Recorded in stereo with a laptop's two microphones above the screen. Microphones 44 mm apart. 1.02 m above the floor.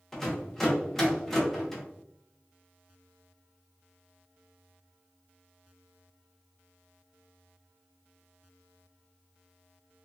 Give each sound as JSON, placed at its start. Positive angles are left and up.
{"t": 0.1, "sound": "a rattle", "side_deg": 5, "distance_m": 0.7}